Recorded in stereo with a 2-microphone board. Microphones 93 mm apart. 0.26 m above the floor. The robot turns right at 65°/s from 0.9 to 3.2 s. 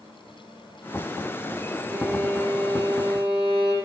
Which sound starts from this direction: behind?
A violin, at 1.9 s.